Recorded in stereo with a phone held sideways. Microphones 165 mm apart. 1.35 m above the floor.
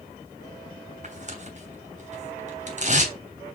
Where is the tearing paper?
45° right (ahead or behind), 2.5 m.